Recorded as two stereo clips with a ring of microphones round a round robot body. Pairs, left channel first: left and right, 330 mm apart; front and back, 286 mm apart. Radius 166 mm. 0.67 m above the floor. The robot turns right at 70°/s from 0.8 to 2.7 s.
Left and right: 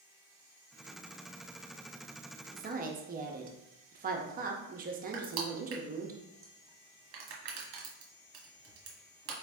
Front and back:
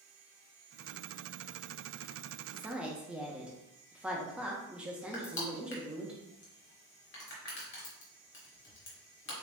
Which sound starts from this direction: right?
A woman speaking, at 2.5 s.